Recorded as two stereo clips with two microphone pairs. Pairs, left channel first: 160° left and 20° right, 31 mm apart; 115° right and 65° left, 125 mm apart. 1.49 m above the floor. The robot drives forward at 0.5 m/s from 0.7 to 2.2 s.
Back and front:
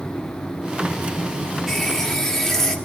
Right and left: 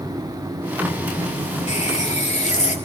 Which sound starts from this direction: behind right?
A running tap, at 1.7 s.